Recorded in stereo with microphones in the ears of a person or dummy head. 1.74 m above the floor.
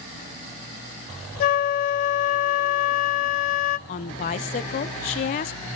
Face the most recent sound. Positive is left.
turn(degrees=45)  # may be behind; listen again after turning